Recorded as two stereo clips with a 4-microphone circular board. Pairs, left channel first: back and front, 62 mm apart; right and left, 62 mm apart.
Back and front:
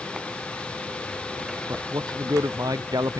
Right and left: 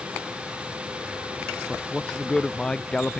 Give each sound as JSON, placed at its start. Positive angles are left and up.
{"t": 1.7, "sound": "a man speaking", "azimuth_deg": -10}